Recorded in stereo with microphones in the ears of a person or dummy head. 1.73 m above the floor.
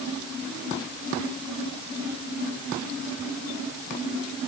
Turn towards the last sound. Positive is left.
No sound to turn to.